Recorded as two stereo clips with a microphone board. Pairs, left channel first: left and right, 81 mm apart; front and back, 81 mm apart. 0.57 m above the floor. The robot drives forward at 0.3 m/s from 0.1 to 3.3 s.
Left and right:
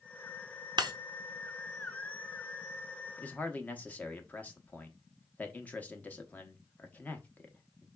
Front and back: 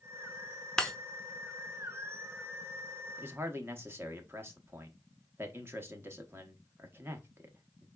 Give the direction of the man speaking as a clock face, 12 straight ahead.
7 o'clock.